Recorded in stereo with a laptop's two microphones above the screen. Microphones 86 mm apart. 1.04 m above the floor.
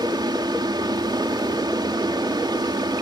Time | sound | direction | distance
0.0 | a fan | 60° right (ahead or behind) | ?